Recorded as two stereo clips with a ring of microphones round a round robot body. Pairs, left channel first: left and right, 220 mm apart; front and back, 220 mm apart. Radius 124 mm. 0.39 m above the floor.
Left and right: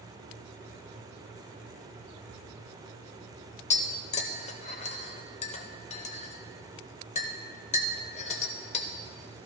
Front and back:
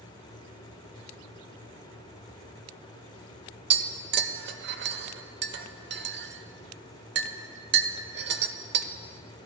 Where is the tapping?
150° left, 0.7 m.